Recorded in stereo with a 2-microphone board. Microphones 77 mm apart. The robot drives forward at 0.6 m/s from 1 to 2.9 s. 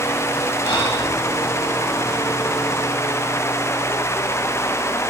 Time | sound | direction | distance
0.6 | breathing | 85° left | 7 m